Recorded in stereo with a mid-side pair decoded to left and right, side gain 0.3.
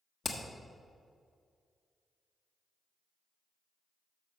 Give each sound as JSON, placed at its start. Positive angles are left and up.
{"t": 0.2, "sound": "hammering", "azimuth_deg": 55, "distance_m": 1.4}